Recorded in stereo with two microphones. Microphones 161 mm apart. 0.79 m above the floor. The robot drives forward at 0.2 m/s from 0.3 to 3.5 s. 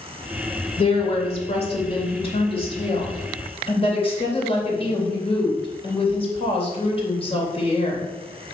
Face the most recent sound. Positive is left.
turn(degrees=35)  # may be behind; listen again after turning